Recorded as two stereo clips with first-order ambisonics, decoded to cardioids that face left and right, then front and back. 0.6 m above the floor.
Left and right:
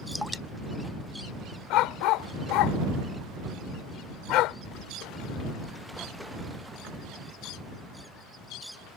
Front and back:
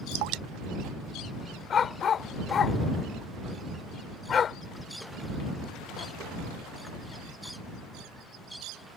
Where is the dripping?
Straight behind.